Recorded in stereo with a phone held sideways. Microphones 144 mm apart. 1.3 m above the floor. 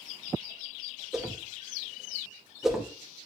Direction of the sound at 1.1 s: 5° right (ahead or behind).